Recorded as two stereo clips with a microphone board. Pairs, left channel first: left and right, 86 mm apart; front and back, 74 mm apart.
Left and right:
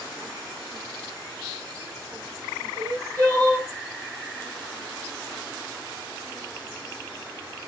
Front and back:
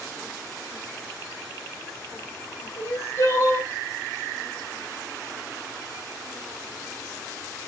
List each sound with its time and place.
2.8 s crying: 40° right, 2.5 m